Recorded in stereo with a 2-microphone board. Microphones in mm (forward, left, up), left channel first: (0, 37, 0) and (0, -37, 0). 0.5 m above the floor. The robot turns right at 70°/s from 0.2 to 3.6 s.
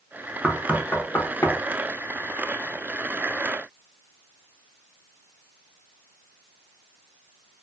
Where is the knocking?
5° left (ahead or behind), 0.6 m; by 1.6 s 45° left (ahead or behind), 0.6 m.